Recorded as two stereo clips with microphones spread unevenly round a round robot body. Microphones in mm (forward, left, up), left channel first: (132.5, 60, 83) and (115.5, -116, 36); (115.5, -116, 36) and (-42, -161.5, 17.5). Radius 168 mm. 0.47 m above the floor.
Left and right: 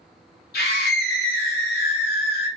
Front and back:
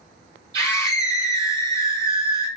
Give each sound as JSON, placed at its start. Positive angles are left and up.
{"t": 0.5, "sound": "a scream", "azimuth_deg": 130, "distance_m": 2.0}